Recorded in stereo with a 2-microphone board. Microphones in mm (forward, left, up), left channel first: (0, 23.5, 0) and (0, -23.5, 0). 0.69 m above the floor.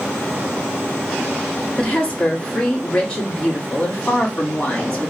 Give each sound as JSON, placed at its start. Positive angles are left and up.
{"t": 1.8, "sound": "a woman speaking", "side_deg": 25, "distance_m": 1.7}